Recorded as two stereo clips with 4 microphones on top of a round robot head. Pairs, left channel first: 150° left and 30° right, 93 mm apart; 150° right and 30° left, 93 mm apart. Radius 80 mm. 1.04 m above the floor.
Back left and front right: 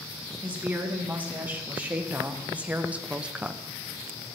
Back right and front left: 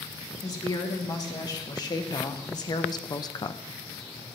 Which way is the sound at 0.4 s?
100° right.